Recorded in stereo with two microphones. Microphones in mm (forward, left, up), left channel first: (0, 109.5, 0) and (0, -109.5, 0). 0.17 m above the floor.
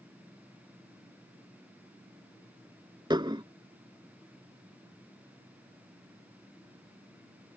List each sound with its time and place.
3.1 s dishes clattering: 20° right (ahead or behind)